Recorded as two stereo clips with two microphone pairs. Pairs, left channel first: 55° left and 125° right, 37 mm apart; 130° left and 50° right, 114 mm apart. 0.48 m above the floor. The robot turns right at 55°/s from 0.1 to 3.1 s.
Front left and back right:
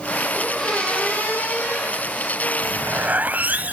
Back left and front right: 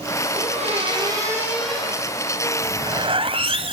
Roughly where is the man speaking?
I don't hear a man speaking.